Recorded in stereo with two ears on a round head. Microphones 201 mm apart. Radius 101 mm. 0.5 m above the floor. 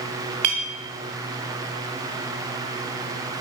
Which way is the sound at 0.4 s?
80° right.